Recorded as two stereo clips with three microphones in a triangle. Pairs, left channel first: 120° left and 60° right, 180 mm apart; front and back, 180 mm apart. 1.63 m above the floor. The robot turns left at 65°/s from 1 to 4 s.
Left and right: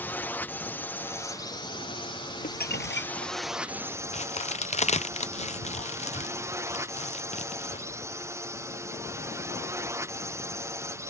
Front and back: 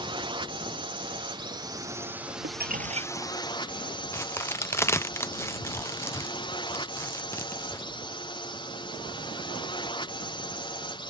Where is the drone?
170° right; by 11.1 s 5° right.